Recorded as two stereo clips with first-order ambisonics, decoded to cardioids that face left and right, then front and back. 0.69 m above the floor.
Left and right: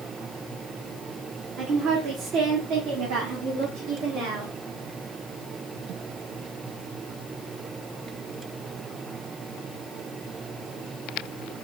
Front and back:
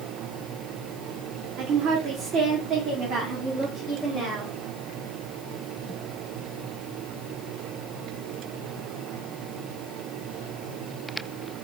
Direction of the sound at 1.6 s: 150° right.